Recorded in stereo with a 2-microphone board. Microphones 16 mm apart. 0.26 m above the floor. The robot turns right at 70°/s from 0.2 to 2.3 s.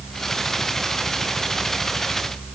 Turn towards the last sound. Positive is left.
No sound to turn to.